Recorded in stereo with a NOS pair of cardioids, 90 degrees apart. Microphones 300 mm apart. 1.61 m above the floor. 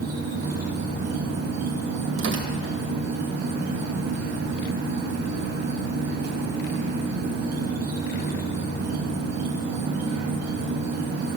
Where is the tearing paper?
45° right, 2.0 m.